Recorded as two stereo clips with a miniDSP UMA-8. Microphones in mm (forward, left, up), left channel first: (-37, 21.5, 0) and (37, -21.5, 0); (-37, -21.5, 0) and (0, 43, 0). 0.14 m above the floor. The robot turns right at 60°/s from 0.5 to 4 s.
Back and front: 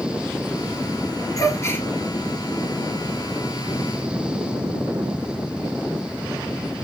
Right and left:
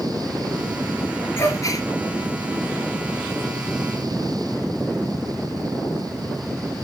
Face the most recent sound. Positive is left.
turn(degrees=-15)